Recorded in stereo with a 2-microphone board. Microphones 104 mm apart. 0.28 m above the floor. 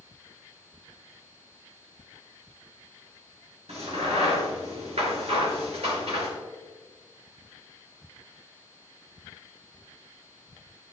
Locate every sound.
3.7 s a crack: 75° right (ahead or behind), 5 m